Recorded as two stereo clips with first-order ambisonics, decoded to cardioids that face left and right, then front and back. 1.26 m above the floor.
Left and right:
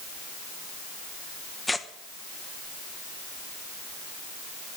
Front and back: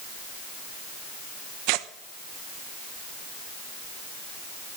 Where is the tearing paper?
175° left, 0.9 m.